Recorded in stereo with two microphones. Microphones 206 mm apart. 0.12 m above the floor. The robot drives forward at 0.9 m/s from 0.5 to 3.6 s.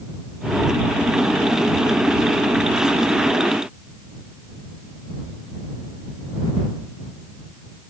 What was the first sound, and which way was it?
Only background noise.